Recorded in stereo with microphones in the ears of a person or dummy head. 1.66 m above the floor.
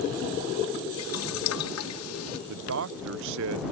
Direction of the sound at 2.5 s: 70° right (ahead or behind).